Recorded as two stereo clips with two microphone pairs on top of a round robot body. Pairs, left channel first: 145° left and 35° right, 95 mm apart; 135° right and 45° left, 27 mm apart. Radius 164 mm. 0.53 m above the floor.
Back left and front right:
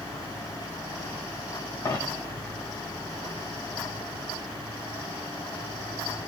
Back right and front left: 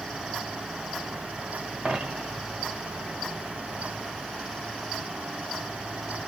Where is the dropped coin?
85° left, 1.1 m.